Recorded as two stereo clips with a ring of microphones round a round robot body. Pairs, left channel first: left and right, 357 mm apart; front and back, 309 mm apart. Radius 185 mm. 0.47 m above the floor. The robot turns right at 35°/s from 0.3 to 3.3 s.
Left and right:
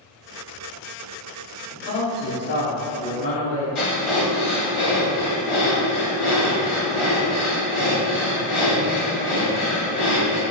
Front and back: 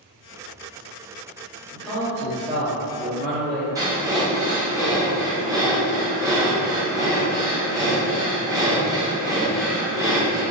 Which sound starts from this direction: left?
Breathing, at 3.8 s.